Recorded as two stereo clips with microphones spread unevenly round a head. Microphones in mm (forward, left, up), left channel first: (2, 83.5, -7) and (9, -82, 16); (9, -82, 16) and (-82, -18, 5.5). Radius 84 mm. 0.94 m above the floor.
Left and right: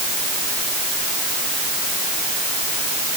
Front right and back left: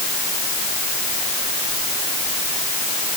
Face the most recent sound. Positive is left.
No sound to turn to.